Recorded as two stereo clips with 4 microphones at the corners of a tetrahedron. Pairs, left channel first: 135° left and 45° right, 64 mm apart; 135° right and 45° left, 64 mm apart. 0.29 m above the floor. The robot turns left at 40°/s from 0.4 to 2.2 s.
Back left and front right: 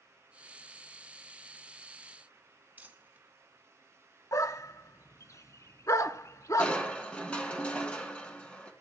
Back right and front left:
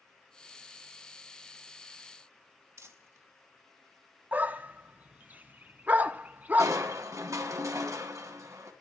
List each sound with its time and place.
2.8 s crumpling: 15° left, 2.5 m
4.3 s a dog barking: 105° left, 1.1 m
6.6 s crushing: 65° left, 3 m